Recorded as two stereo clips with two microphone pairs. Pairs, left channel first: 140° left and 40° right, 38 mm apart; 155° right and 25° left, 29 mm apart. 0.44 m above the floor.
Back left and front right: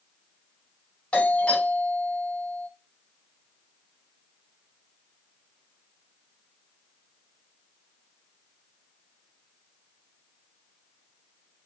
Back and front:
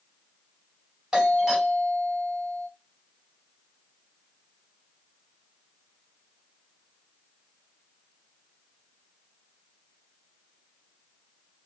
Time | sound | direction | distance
1.1 | a doorbell | 90° left | 2.5 m